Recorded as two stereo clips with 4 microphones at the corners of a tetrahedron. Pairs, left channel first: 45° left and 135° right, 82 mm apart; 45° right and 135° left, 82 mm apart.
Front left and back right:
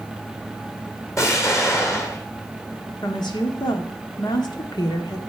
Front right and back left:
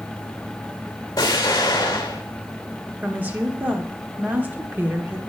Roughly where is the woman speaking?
Left.